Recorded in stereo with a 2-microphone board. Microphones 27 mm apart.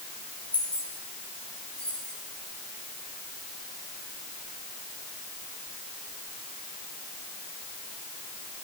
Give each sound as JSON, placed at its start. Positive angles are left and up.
{"t": 0.5, "sound": "keys jangling", "side_deg": 45, "distance_m": 6.0}